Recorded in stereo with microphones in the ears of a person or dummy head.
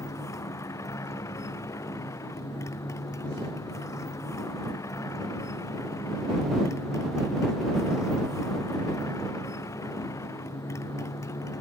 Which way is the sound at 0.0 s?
15° left (ahead or behind).